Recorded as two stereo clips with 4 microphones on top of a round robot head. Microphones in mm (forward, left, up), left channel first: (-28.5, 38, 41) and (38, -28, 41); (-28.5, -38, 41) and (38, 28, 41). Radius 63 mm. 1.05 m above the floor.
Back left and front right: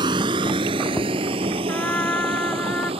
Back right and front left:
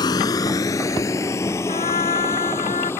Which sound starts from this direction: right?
A vehicle, at 0.0 s.